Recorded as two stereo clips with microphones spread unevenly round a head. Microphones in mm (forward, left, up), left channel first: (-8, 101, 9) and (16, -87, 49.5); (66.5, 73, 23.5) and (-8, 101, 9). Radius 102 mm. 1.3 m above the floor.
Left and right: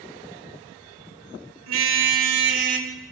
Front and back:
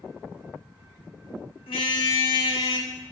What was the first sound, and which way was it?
A car horn, 70° right.